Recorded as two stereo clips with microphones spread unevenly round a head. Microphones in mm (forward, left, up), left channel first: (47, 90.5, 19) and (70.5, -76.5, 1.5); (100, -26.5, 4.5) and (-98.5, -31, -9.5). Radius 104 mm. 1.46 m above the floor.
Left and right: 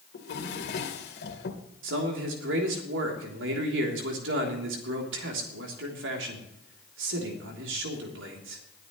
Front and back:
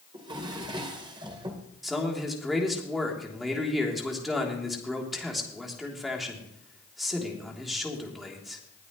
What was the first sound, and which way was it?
A drawer, 110° left.